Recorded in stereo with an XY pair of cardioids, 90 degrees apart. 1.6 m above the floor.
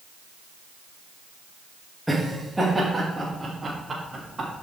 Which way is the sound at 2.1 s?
5° right.